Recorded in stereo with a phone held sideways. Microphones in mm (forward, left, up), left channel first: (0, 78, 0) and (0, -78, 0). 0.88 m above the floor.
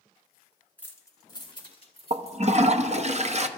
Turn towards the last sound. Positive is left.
turn(degrees=-45)  # may be behind; listen again after turning